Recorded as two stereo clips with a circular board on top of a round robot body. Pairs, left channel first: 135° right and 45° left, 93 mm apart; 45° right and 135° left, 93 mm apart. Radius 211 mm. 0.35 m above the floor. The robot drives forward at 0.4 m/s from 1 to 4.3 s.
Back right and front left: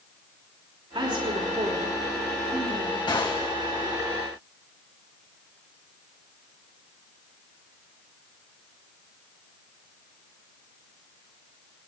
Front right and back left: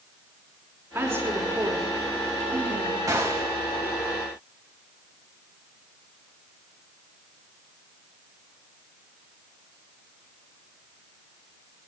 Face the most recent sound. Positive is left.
turn(degrees=-170)